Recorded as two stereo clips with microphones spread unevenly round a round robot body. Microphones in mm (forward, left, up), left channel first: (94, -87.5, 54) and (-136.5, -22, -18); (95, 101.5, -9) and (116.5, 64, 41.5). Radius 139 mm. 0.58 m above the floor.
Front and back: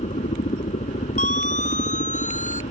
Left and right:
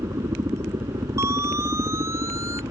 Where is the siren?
75° right.